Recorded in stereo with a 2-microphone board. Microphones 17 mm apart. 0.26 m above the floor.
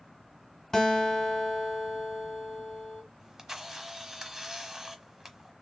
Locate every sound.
0.7 s a guitar: 30° left (ahead or behind), 2.0 m
3.2 s a camera shutter: 25° right (ahead or behind), 0.9 m